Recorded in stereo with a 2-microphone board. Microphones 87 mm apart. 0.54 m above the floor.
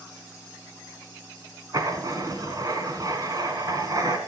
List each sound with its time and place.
1.7 s writing: 50° right (ahead or behind), 1.6 m